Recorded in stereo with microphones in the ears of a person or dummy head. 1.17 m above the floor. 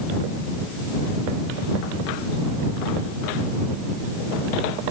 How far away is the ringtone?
I don't hear a ringtone.